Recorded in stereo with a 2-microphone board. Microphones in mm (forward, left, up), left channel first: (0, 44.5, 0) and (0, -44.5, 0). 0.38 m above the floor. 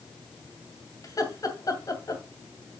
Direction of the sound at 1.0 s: 40° left (ahead or behind).